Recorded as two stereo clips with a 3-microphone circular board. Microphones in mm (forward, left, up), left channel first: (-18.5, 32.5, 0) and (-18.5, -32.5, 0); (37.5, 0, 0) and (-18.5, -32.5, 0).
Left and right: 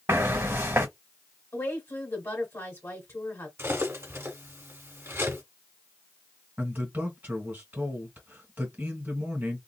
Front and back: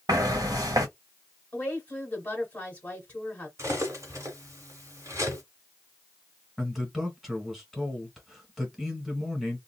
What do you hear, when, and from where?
0.1 s footsteps: 140° right, 1.3 m
1.5 s a woman speaking: 85° left, 1.6 m
3.6 s cutlery clinking: 130° right, 1.3 m
6.6 s a man speaking: 60° right, 1.8 m